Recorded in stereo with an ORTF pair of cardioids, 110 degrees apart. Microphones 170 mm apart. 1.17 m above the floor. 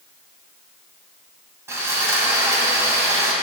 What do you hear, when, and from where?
1.7 s sawing: 15° right, 2.5 m